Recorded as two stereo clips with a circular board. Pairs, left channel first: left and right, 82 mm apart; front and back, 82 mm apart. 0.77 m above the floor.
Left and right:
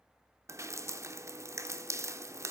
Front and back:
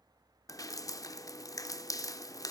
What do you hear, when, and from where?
0.5 s dripping: 40° right, 0.5 m